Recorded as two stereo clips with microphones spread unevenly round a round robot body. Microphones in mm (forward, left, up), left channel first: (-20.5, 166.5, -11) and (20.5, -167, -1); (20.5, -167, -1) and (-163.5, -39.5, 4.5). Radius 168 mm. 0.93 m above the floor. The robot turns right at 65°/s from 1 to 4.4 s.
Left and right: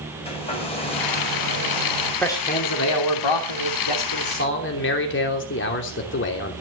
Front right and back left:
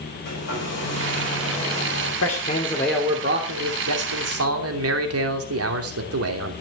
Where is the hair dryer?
25° left, 5 m; by 2.1 s 95° left, 5 m.